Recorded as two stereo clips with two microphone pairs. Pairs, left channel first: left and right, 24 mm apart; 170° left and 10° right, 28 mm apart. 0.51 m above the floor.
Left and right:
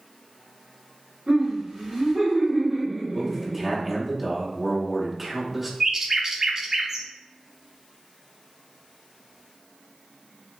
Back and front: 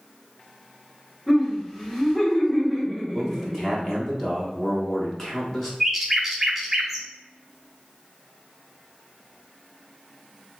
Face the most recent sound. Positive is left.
turn(degrees=-80)